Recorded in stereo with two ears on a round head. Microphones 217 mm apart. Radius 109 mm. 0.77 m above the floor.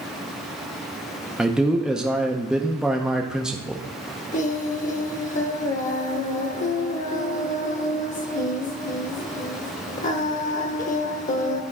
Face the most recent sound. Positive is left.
turn(degrees=35)  # may be behind; listen again after turning